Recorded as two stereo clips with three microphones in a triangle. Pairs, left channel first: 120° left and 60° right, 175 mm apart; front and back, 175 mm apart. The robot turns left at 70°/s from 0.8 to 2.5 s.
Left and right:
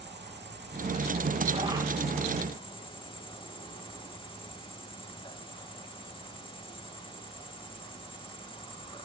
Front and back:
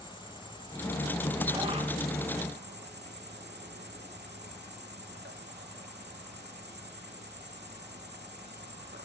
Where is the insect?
60° right, 3.5 m; by 9.0 s straight behind, 3.5 m.